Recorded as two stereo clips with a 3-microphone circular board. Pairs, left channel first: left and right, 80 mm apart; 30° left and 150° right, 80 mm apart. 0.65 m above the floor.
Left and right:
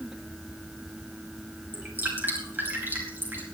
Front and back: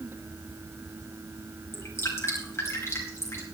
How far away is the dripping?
About 4.5 m.